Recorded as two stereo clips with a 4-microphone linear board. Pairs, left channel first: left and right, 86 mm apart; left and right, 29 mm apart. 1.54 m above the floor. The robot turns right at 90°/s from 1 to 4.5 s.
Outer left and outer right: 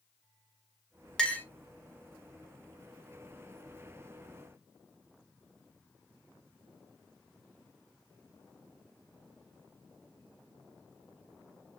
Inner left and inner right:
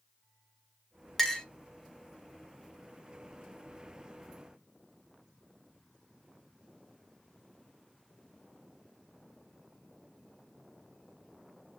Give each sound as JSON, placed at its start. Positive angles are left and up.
{"t": 1.2, "sound": "a clink", "side_deg": 10, "distance_m": 0.6}